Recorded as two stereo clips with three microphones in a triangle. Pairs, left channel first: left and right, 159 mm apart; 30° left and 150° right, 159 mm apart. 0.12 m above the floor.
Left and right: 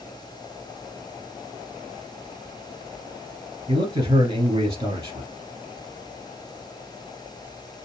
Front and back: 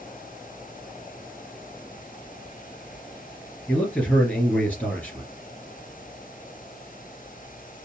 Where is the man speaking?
50° right, 2.5 m.